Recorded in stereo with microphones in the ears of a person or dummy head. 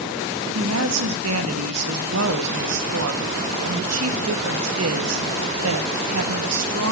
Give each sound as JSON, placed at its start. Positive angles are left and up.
{"t": 0.6, "sound": "a woman speaking", "side_deg": -80, "distance_m": 1.5}